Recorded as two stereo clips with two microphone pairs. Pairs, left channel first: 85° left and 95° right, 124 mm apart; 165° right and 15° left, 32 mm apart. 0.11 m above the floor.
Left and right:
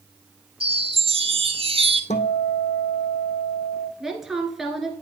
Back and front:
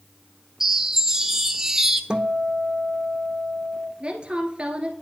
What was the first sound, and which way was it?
A chime, 65° right.